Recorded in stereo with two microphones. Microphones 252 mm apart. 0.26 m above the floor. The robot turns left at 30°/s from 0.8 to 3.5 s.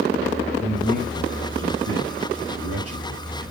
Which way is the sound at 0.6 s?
30° right (ahead or behind).